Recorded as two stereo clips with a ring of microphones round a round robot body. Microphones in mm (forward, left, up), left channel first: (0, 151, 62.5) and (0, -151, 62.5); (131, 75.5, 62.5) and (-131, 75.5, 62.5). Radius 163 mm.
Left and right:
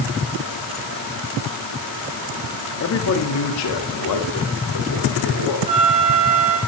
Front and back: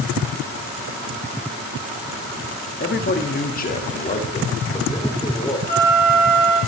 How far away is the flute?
About 3.5 m.